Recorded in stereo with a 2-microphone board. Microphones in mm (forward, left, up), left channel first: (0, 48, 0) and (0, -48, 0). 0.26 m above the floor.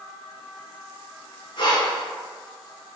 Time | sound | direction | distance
1.6 | breathing | 50° left (ahead or behind) | 0.8 m